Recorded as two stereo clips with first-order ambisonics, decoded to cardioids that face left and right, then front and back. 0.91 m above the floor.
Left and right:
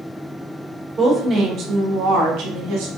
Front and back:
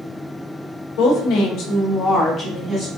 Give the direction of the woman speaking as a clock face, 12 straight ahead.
12 o'clock.